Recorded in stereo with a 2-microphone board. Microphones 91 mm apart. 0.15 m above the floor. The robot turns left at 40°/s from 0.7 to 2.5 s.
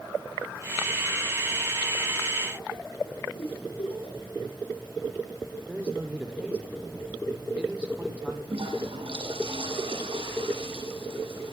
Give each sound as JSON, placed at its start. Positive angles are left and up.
{"t": 3.4, "sound": "a giggle", "side_deg": 75, "distance_m": 9.5}
{"t": 5.7, "sound": "a man speaking", "side_deg": -15, "distance_m": 5.0}
{"t": 8.5, "sound": "a toilet flushing", "side_deg": -80, "distance_m": 8.0}